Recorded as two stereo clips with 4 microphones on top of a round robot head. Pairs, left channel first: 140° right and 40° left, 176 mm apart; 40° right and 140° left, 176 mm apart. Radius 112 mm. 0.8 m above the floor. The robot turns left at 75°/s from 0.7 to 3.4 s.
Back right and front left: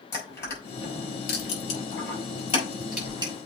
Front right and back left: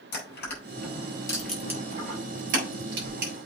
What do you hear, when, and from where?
0.1 s crushing: 65° right, 5 m; by 3.3 s 95° left, 5 m